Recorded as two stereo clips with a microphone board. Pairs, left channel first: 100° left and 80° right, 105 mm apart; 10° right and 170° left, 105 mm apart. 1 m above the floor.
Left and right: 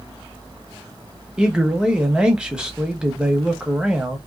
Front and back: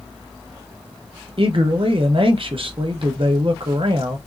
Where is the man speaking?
160° right, 0.7 m.